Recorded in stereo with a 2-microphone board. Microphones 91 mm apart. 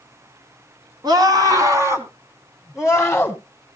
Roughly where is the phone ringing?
No phone ringing in this recording.